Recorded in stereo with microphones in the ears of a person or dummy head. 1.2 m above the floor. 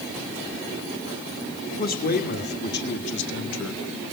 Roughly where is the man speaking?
Left.